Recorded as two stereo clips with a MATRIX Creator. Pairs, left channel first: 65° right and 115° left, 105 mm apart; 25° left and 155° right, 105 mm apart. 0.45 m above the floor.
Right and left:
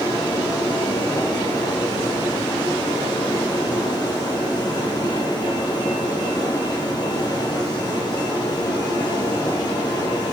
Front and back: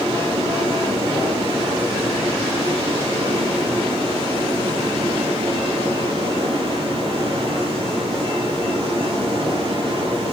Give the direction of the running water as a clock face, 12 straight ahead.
4 o'clock.